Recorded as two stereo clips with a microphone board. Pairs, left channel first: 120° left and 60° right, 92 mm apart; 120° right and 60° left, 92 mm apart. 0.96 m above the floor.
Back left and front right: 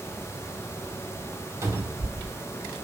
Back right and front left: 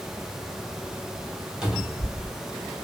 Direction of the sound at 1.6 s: 20° right.